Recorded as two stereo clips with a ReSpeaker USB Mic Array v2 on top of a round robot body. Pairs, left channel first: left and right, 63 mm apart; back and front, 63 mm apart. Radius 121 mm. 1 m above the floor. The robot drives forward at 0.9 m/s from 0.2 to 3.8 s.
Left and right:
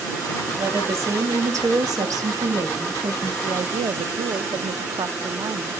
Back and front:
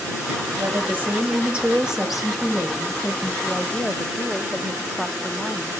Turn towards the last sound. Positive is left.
turn(degrees=-95)